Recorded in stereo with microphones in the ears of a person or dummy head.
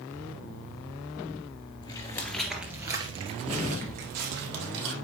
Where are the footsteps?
25° left (ahead or behind), 1.9 m; by 4.9 s 65° right (ahead or behind), 3.5 m.